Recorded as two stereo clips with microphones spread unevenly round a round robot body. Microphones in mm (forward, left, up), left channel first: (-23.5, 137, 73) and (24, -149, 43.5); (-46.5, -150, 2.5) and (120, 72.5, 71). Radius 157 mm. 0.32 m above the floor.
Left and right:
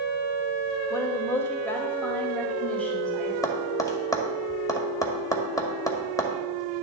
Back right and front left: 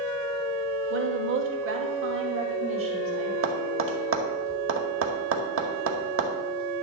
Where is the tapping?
20° left, 2.0 m.